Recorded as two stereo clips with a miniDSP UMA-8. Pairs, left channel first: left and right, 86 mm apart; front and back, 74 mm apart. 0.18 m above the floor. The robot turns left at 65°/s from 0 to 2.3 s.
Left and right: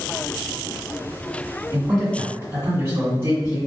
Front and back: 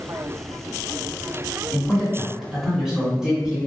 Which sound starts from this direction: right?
A man speaking, at 1.7 s.